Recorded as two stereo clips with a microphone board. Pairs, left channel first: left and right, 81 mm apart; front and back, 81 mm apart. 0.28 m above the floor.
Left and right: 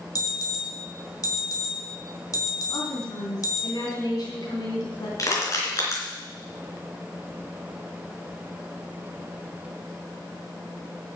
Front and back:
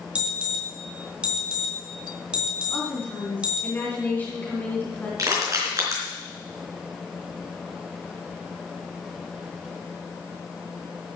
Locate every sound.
0.1 s an alarm: 105° left, 2 m
2.7 s a woman speaking: 65° left, 3.5 m
5.2 s crushing: 135° left, 4 m